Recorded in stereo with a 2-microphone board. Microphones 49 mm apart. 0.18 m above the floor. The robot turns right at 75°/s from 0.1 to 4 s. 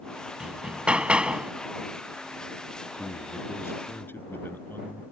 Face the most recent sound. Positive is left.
turn(degrees=130)